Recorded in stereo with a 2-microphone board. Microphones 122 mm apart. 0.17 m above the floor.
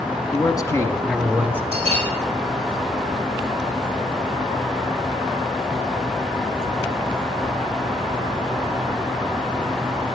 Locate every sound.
0.3 s a man speaking: 40° left (ahead or behind), 1.3 m; by 1.6 s 15° right (ahead or behind), 1.2 m
1.7 s a bell: 50° right (ahead or behind), 5 m